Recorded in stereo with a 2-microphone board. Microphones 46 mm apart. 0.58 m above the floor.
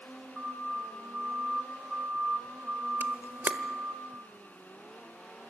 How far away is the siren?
About 2.5 m.